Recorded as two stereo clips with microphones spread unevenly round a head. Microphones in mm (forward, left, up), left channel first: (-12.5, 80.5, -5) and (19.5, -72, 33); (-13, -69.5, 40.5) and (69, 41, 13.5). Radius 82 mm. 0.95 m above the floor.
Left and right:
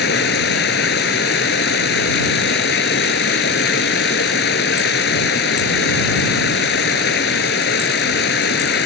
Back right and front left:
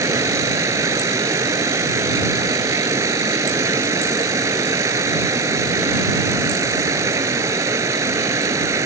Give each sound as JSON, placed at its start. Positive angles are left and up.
{"t": 0.0, "sound": "running water", "azimuth_deg": 125}